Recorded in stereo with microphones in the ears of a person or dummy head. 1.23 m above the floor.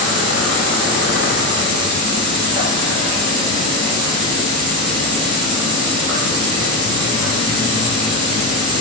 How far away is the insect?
About 2.5 m.